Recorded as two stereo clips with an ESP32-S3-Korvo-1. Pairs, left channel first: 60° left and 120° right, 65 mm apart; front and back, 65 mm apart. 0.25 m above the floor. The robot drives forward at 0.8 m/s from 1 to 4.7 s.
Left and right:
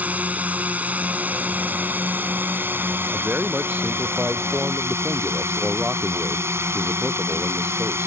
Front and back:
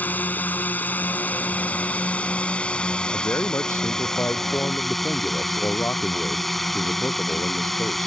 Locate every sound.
0.0 s a drone: 60° right; by 8.1 s 90° right
3.1 s a man speaking: 50° right; by 8.1 s 55° right